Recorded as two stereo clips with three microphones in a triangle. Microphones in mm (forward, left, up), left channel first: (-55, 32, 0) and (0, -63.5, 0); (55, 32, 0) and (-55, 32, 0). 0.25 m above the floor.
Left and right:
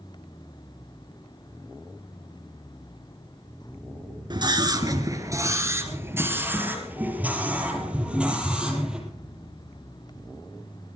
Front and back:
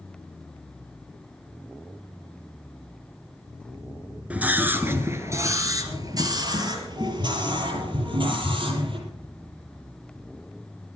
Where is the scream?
105° right, 3 m; by 9.0 s 145° right, 6.5 m.